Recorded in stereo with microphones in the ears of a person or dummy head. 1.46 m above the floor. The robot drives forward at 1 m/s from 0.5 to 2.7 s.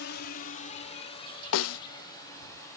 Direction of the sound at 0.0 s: 65° left (ahead or behind).